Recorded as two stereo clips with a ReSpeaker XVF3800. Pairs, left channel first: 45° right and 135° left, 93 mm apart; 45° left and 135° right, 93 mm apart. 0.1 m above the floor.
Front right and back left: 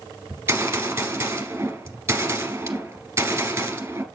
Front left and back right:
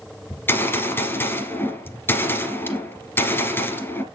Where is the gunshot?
90° left, 1.5 m.